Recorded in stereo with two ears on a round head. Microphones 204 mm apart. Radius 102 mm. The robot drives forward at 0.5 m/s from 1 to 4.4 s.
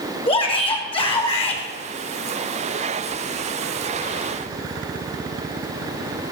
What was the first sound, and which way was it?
A shout, 25° left (ahead or behind).